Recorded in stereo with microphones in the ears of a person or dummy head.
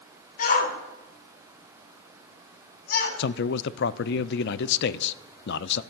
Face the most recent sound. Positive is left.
turn(degrees=65)  # may be behind; listen again after turning